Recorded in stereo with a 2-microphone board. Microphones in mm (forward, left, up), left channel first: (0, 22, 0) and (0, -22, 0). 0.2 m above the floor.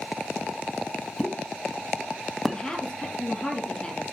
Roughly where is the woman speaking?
Centre.